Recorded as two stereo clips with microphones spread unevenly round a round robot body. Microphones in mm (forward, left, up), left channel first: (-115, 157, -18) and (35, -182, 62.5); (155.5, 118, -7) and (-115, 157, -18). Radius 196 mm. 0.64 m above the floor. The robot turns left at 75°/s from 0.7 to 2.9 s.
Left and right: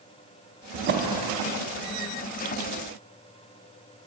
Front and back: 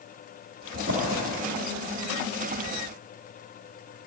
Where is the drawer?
120° right, 0.5 m; by 1.2 s 160° right, 0.5 m.